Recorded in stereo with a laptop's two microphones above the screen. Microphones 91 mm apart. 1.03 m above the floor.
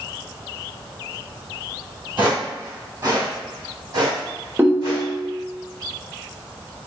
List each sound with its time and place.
2.2 s footsteps: 20° right (ahead or behind), 1.3 m; by 5.1 s 50° right (ahead or behind), 2.5 m
4.6 s a ringtone: 20° right (ahead or behind), 0.6 m